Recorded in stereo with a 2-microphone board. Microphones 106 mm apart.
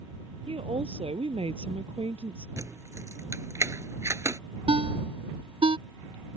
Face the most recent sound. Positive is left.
turn(degrees=-55)  # may be behind; listen again after turning